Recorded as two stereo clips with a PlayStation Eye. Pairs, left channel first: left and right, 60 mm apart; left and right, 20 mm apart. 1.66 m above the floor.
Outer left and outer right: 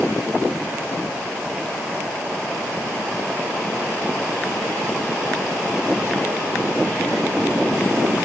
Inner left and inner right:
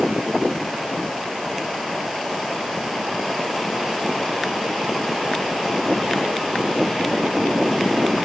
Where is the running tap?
No running tap in this recording.